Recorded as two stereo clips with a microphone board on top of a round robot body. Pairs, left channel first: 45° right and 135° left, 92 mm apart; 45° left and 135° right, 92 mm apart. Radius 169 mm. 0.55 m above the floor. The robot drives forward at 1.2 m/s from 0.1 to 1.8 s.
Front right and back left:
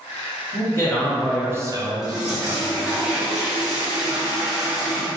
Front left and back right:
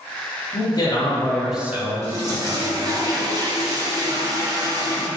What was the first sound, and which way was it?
A man speaking, 10° left.